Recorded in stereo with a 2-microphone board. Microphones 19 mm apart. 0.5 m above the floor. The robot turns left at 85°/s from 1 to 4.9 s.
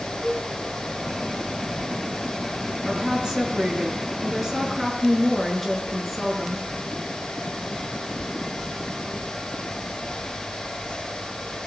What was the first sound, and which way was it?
A cowbell, 25° left (ahead or behind).